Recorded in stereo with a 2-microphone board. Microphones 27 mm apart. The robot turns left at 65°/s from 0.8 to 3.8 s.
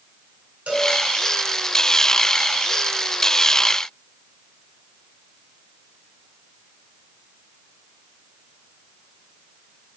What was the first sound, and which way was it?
A cowbell, 65° right (ahead or behind).